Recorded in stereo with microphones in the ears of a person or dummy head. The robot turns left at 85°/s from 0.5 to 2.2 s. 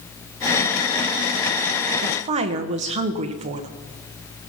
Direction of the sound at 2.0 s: 55° right (ahead or behind).